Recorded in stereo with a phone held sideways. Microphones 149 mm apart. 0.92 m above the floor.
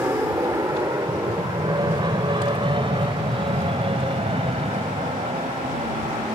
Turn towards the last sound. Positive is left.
turn(degrees=-45)  # may be behind; listen again after turning